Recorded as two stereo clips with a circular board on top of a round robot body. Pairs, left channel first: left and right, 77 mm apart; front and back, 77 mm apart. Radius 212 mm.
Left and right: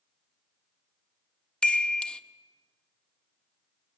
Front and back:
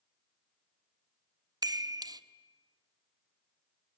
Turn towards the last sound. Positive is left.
turn(degrees=165)